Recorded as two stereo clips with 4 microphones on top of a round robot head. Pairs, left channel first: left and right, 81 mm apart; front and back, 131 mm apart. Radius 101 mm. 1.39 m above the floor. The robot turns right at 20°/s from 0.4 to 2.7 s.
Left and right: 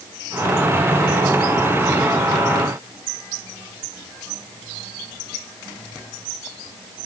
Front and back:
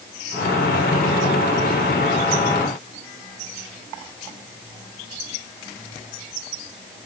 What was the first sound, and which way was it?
Only background noise.